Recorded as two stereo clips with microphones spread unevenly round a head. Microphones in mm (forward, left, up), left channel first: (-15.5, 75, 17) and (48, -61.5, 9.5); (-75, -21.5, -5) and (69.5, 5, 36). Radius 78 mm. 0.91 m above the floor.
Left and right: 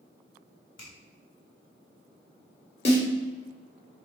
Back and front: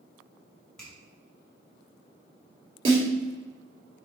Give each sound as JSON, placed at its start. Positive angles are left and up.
{"t": 0.8, "sound": "a finger snap", "azimuth_deg": 105, "distance_m": 3.5}
{"t": 2.9, "sound": "a snare drum", "azimuth_deg": 70, "distance_m": 3.5}